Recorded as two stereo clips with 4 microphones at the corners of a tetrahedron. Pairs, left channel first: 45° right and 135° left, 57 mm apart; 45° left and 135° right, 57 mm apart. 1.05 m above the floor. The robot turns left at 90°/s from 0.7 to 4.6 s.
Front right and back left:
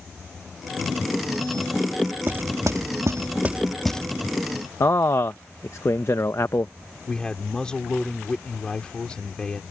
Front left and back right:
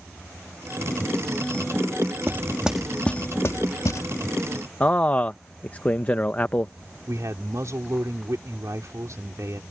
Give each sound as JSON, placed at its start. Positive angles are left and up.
{"t": 2.3, "sound": "knocking", "azimuth_deg": -175}
{"t": 4.8, "sound": "a man speaking", "azimuth_deg": -15}
{"t": 7.1, "sound": "a man speaking", "azimuth_deg": -120}